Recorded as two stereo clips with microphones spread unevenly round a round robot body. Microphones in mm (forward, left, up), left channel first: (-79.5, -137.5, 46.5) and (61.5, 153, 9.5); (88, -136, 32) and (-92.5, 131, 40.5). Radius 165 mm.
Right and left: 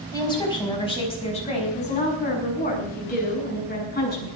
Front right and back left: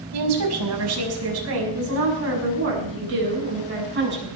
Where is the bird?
No bird in this recording.